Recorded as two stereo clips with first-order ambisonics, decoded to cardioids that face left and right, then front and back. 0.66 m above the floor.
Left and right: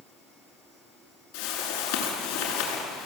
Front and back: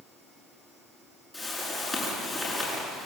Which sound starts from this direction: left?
A whoosh, at 1.3 s.